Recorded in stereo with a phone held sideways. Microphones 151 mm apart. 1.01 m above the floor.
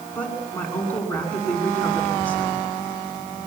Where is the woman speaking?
10° left (ahead or behind), 9 m.